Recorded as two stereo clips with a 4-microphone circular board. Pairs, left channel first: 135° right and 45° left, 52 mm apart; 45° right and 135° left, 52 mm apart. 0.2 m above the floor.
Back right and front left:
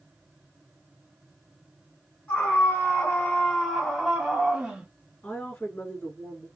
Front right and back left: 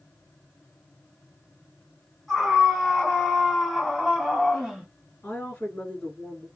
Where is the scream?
130° right, 1.9 m; by 4.9 s 70° left, 1.5 m.